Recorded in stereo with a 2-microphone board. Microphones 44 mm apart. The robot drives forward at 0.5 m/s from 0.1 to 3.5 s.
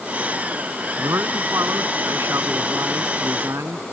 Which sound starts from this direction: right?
A man speaking, at 1.0 s.